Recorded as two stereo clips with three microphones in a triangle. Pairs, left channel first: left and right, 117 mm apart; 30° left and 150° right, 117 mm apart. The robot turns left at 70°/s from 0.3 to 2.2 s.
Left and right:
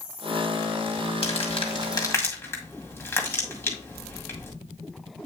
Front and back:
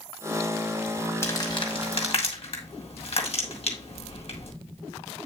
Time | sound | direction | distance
1.2 | crumpling | 95° left | 2.0 m